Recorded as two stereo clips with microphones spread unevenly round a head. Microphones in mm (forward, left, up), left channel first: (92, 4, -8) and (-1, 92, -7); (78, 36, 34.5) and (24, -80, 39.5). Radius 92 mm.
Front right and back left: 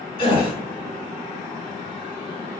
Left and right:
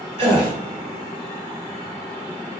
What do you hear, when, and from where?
0.2 s a gasp: 85° right, 2.5 m